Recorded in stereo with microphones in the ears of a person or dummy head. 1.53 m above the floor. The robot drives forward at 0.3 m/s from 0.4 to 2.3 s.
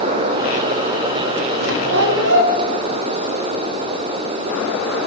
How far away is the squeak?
About 1.1 m.